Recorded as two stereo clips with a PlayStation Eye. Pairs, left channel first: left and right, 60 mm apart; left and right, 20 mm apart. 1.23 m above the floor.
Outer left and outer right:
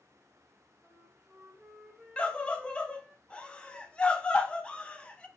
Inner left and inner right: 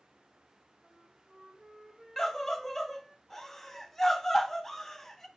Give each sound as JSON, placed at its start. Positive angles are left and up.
{"t": 0.8, "sound": "a flute", "side_deg": -15, "distance_m": 0.6}
{"t": 2.2, "sound": "a scream", "side_deg": 15, "distance_m": 0.5}